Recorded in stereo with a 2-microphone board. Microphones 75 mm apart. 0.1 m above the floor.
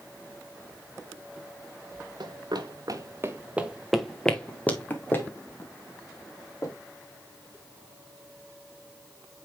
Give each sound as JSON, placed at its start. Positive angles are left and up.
{"t": 2.2, "sound": "running footsteps", "side_deg": -75, "distance_m": 1.4}